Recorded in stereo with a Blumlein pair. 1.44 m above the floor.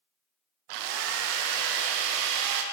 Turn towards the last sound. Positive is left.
turn(degrees=-45)